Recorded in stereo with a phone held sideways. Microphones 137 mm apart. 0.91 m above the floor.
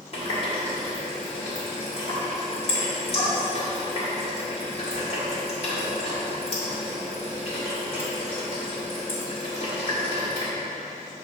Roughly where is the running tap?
Left.